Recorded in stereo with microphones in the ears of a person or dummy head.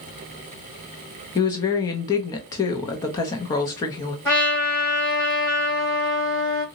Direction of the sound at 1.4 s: 25° left (ahead or behind).